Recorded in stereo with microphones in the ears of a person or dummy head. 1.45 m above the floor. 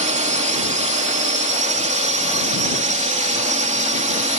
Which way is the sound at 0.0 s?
40° right (ahead or behind).